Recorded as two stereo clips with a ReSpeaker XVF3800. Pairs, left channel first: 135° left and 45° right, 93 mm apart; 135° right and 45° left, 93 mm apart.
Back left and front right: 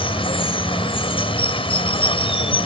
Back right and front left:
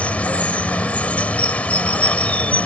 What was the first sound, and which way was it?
Running water, 150° left.